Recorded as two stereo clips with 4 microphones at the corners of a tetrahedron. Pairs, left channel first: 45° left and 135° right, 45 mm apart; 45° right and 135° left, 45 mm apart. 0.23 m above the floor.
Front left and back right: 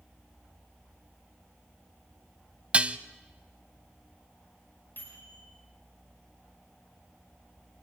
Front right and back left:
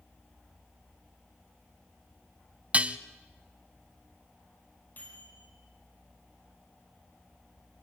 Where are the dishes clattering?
175° left, 0.8 m.